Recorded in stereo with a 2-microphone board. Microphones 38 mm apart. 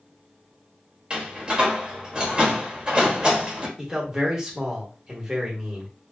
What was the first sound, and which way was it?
A door slam, 25° right (ahead or behind).